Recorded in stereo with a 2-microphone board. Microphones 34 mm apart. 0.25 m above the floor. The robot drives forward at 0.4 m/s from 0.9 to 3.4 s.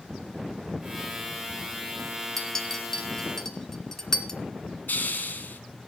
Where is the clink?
15° left (ahead or behind), 2 m.